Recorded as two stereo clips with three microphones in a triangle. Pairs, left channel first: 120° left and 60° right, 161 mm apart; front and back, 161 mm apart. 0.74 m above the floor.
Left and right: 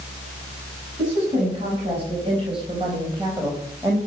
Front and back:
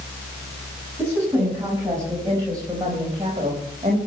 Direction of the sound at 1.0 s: 105° right.